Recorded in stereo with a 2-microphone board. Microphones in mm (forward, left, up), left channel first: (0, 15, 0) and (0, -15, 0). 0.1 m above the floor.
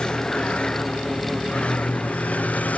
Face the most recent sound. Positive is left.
turn(degrees=60)  # may be behind; listen again after turning